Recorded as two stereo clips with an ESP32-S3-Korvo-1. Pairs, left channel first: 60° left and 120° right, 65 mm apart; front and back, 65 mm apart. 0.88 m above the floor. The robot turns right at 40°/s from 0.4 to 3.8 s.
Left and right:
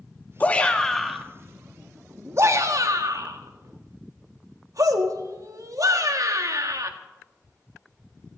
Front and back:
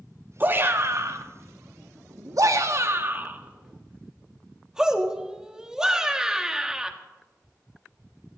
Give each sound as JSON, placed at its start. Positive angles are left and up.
{"t": 0.4, "sound": "a shout", "azimuth_deg": 125, "distance_m": 1.7}